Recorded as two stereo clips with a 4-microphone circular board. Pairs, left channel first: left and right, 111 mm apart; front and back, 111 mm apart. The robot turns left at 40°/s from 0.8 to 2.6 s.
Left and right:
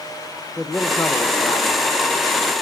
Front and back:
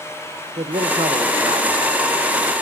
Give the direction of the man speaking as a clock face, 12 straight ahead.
6 o'clock.